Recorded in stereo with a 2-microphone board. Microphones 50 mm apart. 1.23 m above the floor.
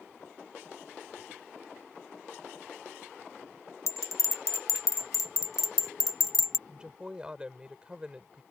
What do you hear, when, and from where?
3.9 s a bell: 80° left
6.7 s a woman speaking: 20° right (ahead or behind)